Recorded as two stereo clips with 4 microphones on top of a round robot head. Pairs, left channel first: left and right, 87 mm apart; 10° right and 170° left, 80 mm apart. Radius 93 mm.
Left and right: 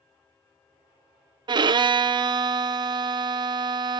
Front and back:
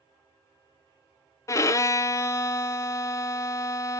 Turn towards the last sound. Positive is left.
turn(degrees=-60)